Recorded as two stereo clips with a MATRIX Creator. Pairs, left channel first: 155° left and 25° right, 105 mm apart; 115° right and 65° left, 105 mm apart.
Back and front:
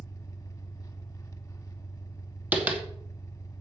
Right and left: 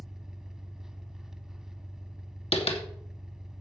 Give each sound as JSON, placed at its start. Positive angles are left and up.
{"t": 0.0, "sound": "an engine running", "azimuth_deg": 150, "distance_m": 1.4}
{"t": 2.5, "sound": "tapping", "azimuth_deg": -100, "distance_m": 2.5}